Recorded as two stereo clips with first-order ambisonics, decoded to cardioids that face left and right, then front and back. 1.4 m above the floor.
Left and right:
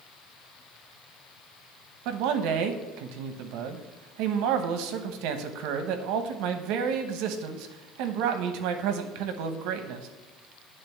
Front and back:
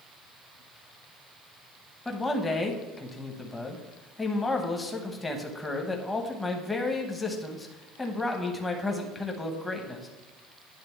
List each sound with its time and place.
2.0 s a man speaking: 80° right, 1.0 m